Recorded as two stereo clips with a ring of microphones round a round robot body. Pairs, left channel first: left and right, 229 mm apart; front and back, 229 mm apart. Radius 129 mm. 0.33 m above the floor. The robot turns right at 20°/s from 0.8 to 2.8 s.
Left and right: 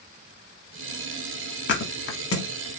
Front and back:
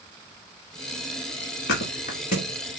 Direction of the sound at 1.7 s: 50° left.